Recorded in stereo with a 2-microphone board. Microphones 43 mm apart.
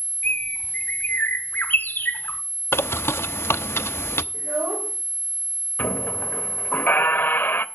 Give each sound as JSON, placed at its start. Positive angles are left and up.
{"t": 0.2, "sound": "a bird", "side_deg": 50, "distance_m": 1.3}
{"t": 2.7, "sound": "a bird", "side_deg": 75, "distance_m": 0.6}
{"t": 4.3, "sound": "a child speaking", "side_deg": -55, "distance_m": 3.0}
{"t": 5.8, "sound": "a squeak", "side_deg": 50, "distance_m": 0.7}